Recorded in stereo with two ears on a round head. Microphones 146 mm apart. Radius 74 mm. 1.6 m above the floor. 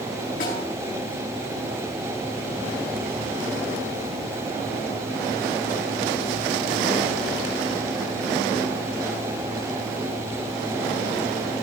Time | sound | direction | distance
0.4 | a snare drum | 50° left (ahead or behind) | 5.5 m